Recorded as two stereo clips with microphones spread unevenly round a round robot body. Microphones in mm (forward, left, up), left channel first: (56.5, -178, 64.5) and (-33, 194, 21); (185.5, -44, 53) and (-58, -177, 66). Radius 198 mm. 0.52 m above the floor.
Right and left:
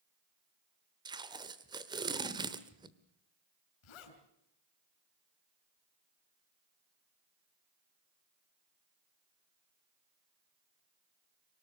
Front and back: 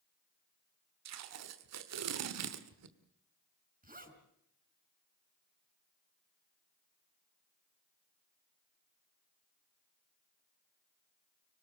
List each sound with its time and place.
1.1 s tape being pulled: straight behind, 1.3 m
3.8 s a zipper: 90° right, 5.5 m